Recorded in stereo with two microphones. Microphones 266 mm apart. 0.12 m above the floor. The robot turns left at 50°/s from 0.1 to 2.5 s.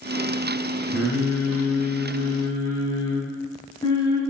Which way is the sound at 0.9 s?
5° right (ahead or behind).